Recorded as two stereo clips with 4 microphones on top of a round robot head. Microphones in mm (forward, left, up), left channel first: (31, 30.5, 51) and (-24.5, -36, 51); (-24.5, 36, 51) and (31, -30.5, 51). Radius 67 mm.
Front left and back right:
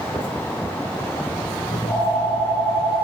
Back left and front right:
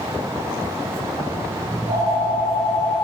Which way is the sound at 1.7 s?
Straight ahead.